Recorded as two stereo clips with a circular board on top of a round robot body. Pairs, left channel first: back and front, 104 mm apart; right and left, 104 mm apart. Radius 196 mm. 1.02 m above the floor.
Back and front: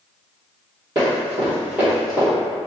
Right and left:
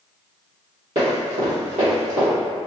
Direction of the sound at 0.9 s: 55° left.